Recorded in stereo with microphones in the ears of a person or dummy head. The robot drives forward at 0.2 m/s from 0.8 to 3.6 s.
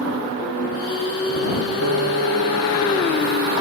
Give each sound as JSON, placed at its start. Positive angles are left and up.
{"t": 1.8, "sound": "a piano", "side_deg": -75, "distance_m": 1.5}